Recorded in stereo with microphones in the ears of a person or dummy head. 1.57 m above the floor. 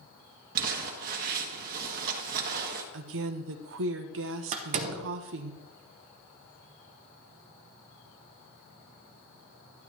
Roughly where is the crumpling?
Right.